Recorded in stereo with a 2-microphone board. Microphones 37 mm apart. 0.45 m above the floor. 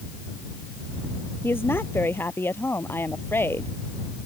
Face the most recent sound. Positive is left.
turn(degrees=85)